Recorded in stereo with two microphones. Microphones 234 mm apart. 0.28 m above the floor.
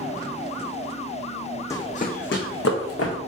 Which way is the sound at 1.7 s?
15° left (ahead or behind).